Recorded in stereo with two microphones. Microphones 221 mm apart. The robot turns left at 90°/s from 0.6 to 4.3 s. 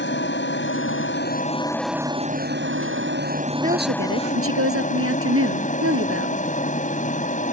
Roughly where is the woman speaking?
Ahead right.